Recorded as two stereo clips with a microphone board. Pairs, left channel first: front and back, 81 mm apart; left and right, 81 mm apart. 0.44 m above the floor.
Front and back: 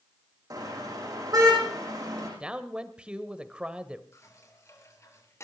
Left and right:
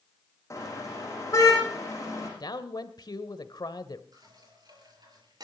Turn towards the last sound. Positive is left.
turn(degrees=-55)